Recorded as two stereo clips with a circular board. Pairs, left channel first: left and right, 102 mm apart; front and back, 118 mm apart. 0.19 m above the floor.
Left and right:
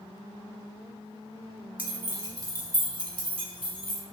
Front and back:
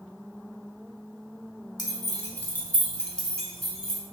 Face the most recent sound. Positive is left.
turn(degrees=-95)